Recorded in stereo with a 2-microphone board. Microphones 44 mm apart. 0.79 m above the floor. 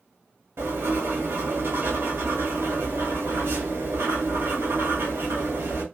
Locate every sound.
0.6 s writing: 85° right, 2 m